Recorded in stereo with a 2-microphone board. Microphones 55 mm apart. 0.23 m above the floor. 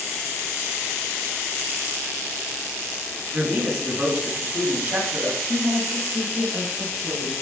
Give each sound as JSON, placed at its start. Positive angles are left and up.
{"t": 3.3, "sound": "a man speaking", "side_deg": -45, "distance_m": 2.0}
{"t": 5.5, "sound": "a woman speaking", "side_deg": -30, "distance_m": 1.4}